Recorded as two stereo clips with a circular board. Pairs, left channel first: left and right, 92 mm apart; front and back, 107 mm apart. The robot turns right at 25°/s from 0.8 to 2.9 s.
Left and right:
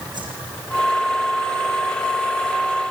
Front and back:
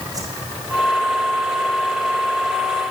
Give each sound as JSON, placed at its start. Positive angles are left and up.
{"t": 0.1, "sound": "a whoosh", "azimuth_deg": -125, "distance_m": 7.0}